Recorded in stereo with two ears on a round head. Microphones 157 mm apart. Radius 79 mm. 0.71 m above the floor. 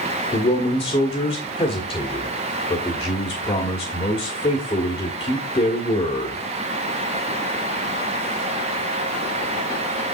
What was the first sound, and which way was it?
A man speaking, 25° left (ahead or behind).